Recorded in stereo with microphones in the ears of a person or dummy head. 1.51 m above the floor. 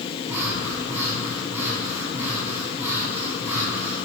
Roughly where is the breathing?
Centre.